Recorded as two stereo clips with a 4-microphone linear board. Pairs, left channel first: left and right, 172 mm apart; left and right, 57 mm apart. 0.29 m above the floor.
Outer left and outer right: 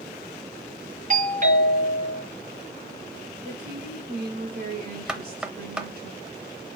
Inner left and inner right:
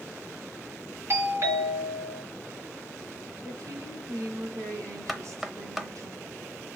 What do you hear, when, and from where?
1.1 s a doorbell: 50° right (ahead or behind), 3 m
3.4 s a woman speaking: 65° right (ahead or behind), 3 m
5.1 s knocking: 5° right (ahead or behind), 0.8 m